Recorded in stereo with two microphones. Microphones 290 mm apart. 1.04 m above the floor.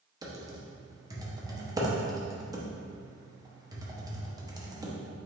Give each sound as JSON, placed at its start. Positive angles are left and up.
{"t": 0.2, "sound": "typing on a keyboard", "side_deg": -15, "distance_m": 0.6}